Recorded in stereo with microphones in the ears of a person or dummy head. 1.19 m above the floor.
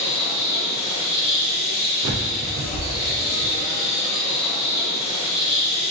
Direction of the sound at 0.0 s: 60° left (ahead or behind).